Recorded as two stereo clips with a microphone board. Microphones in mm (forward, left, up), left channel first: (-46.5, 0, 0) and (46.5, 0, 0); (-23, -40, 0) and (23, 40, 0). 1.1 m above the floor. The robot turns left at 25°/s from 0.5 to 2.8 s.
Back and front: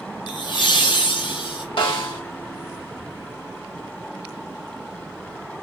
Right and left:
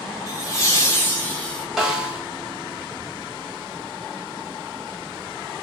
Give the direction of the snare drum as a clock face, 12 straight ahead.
7 o'clock.